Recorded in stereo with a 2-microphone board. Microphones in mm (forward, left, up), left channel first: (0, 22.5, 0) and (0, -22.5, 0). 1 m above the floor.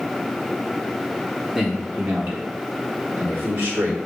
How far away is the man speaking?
About 1.7 m.